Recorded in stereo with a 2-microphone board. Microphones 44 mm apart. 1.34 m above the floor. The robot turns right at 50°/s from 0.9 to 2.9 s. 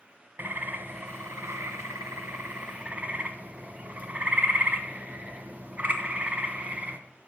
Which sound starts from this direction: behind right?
A bird, at 0.4 s.